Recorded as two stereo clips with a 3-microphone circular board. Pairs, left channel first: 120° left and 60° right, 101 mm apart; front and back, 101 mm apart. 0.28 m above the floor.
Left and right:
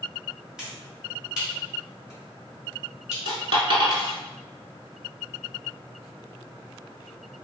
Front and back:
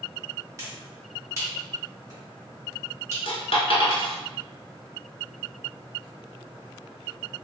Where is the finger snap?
140° right, 1.4 m.